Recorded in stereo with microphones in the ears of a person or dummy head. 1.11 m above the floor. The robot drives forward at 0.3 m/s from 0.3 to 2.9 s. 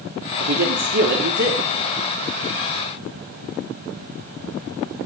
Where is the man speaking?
60° right (ahead or behind), 3 m; by 1.6 s 55° right (ahead or behind), 3.5 m.